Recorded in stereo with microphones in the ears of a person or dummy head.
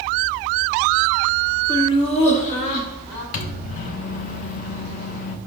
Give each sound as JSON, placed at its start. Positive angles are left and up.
{"t": 1.7, "sound": "laughter", "side_deg": 10, "distance_m": 0.7}
{"t": 3.3, "sound": "a microwave", "side_deg": 45, "distance_m": 0.6}